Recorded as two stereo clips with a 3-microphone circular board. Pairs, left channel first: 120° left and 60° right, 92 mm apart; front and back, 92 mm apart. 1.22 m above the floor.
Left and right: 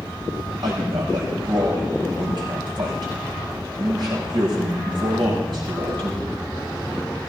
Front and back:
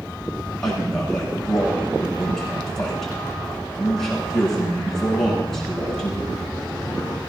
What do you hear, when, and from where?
0.6 s a man speaking: 85° right, 7.5 m